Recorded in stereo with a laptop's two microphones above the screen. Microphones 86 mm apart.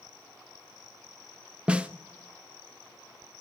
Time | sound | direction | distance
1.7 | a snare drum | 15° right (ahead or behind) | 0.5 m